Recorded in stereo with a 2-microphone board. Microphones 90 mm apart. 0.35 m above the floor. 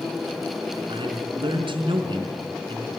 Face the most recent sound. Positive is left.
turn(degrees=-65)  # may be behind; listen again after turning